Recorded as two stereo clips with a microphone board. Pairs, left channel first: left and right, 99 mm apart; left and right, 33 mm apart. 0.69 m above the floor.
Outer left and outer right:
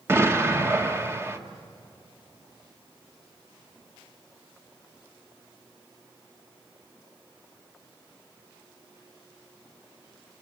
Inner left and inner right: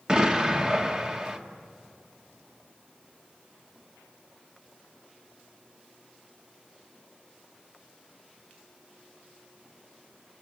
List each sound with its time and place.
0.1 s an explosion: 25° right (ahead or behind), 1.6 m